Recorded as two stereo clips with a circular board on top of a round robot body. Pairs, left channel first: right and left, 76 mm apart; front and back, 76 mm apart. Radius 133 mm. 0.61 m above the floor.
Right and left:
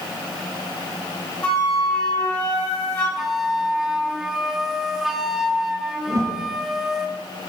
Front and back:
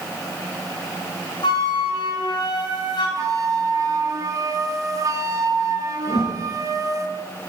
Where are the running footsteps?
No running footsteps in this recording.